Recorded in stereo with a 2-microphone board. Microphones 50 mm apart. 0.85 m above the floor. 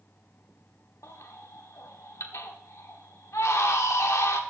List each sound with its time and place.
1.0 s a baby crying: 80° left, 1.3 m